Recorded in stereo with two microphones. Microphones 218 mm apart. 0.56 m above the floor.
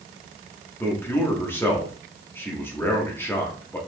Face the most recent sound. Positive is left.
turn(degrees=10)  # may be behind; listen again after turning